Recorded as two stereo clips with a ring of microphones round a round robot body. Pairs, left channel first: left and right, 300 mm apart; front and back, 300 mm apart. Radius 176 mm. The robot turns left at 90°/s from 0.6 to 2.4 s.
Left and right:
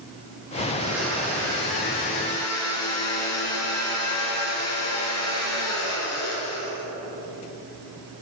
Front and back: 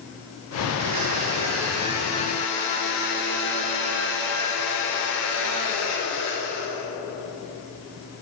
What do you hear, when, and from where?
0.7 s a blender: 150° right, 3 m; by 6.8 s 55° left, 3 m